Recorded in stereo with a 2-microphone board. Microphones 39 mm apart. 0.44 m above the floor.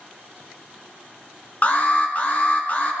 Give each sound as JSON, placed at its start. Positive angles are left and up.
{"t": 1.6, "sound": "an alarm", "side_deg": 40, "distance_m": 2.5}